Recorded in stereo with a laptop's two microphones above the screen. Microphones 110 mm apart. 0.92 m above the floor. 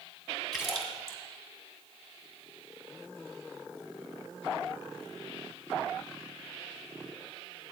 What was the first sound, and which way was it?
A splash, centre (ahead or behind).